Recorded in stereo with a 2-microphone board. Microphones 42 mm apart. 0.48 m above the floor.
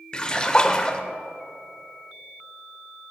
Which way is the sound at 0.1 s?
20° left (ahead or behind).